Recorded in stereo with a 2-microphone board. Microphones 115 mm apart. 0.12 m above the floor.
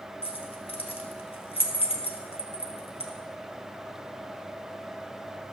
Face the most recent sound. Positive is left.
turn(degrees=55)  # may be behind; listen again after turning